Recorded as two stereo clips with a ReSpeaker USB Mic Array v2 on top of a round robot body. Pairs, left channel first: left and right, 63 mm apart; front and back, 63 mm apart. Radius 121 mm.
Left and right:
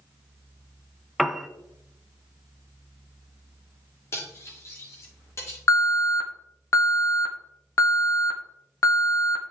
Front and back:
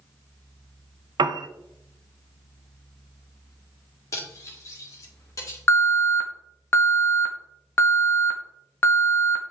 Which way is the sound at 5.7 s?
55° left.